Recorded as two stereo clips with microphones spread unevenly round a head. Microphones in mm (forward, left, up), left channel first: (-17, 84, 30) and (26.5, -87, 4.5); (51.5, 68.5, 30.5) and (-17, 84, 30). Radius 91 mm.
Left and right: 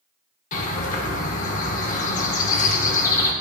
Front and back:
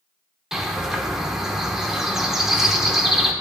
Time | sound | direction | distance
0.5 | a bird | 85° left | 1.1 m